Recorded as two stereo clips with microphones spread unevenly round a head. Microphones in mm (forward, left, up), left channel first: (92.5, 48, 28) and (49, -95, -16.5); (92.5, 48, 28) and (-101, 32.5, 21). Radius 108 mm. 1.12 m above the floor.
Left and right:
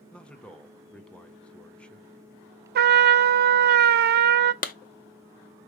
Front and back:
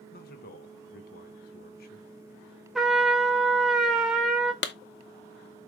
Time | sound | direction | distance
0.1 | a man speaking | 20° right | 1.0 m
2.8 | a trumpet | 85° right | 0.5 m
4.6 | a clap | 40° left | 0.8 m